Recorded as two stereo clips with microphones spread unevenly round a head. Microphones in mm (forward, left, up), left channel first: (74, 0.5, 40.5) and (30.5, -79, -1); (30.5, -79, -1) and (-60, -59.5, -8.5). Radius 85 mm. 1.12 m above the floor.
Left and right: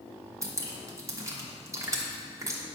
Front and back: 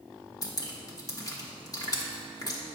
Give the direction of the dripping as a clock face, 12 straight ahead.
2 o'clock.